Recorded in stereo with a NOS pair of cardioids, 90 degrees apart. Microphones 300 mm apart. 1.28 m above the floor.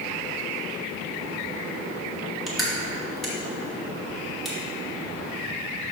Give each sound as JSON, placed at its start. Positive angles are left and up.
{"t": 2.5, "sound": "crushing", "azimuth_deg": 0, "distance_m": 2.5}